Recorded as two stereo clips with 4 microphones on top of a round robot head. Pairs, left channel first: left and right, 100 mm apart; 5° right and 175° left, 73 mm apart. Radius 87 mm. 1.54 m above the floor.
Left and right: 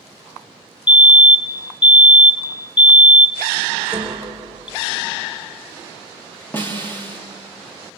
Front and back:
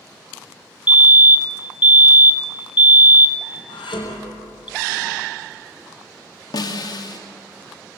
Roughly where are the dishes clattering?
Ahead.